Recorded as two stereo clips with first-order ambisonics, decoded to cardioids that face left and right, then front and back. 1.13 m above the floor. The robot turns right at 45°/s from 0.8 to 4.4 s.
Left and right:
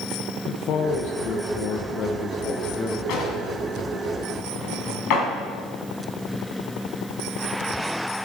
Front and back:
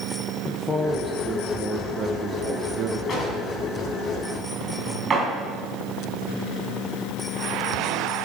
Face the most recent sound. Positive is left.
turn(degrees=120)